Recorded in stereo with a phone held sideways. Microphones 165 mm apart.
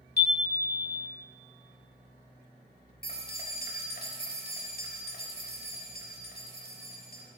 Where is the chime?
75° left (ahead or behind), 1.4 m.